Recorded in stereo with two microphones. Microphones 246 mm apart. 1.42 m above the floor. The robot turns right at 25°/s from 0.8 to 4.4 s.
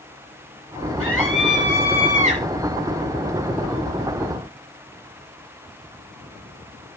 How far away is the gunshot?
I don't hear a gunshot.